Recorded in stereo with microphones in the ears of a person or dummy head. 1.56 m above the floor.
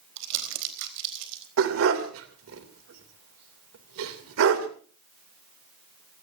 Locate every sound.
0.2 s crumpling: 70° right (ahead or behind), 4 m
1.6 s a dog barking: 70° right (ahead or behind), 2.5 m